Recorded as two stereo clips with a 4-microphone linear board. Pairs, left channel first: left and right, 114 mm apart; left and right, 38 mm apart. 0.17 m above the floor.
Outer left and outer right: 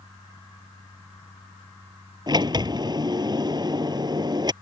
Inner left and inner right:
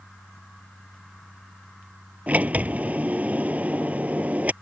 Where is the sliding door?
40° right (ahead or behind).